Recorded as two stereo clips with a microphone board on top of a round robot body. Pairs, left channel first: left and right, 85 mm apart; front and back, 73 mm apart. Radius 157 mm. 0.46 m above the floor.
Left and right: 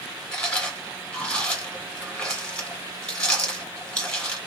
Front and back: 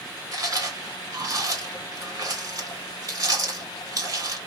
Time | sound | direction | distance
0.3 | chewing | 170° left | 2.0 m